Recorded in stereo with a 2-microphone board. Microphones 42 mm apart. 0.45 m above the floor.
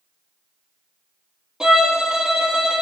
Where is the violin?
15° right (ahead or behind), 2 m.